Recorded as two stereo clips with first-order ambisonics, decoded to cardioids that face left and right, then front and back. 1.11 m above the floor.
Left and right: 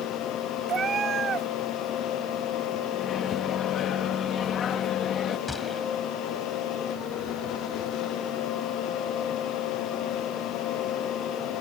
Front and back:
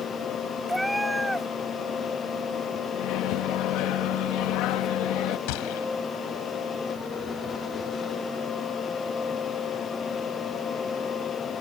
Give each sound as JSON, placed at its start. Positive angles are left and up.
{"t": 0.7, "sound": "a cat meowing", "azimuth_deg": -95}
{"t": 2.9, "sound": "a microwave", "azimuth_deg": 30}
{"t": 5.5, "sound": "a gunshot", "azimuth_deg": 10}